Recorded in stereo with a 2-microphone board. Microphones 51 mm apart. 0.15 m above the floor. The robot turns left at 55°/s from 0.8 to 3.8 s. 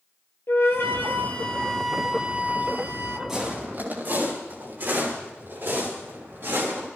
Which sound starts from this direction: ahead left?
A flute, at 0.5 s.